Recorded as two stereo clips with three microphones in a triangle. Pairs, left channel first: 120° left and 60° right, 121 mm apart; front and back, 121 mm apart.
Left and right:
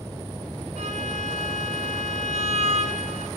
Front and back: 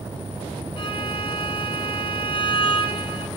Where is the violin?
45° right, 2 m.